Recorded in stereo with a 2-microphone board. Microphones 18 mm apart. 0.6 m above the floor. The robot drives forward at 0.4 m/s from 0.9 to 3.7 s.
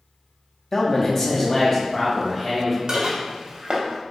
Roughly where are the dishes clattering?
Right.